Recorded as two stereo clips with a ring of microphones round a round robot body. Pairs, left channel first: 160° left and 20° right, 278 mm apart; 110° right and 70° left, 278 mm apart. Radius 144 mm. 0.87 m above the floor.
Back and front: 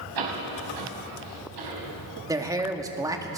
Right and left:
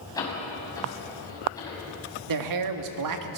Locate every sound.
0.1 s a door slam: 35° right, 5.5 m
2.3 s a man speaking: 55° left, 1.7 m